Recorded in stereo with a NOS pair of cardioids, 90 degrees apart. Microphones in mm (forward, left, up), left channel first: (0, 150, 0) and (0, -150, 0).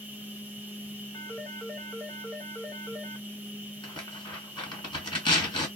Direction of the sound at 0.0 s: 5° right.